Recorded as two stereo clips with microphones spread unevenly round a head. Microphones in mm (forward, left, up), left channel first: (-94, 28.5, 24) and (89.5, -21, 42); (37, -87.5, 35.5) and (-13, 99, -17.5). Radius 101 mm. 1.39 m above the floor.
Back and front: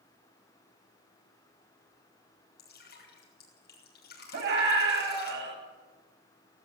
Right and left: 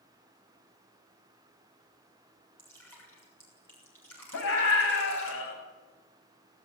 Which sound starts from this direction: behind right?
Dripping, at 2.6 s.